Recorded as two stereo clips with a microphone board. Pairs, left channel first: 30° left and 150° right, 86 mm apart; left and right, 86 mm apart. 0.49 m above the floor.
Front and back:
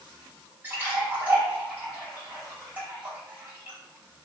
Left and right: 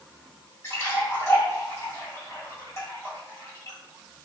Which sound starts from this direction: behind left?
A splash, at 0.6 s.